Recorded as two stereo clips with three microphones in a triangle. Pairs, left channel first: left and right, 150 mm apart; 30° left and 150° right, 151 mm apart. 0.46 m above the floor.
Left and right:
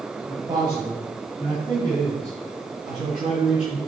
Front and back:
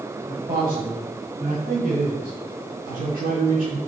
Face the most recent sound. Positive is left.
turn(degrees=-165)